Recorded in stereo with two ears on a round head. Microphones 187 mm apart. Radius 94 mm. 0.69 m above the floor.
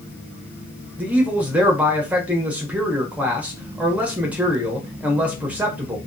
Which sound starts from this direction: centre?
A man speaking, at 1.0 s.